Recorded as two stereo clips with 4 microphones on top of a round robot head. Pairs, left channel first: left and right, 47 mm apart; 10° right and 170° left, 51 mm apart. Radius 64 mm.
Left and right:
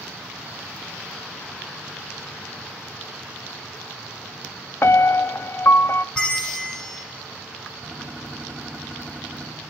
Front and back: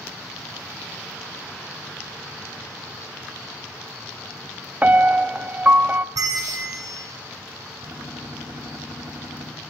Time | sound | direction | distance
4.8 | a piano | 115° left | 0.7 m
6.2 | a bell | 165° left | 1.9 m
7.8 | a gunshot | 160° right | 6 m